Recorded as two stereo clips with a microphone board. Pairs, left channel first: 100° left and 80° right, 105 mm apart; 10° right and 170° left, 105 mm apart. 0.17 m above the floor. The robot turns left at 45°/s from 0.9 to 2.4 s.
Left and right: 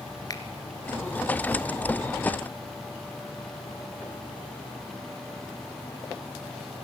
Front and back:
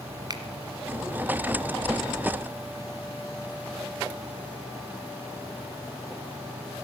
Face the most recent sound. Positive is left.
turn(degrees=70)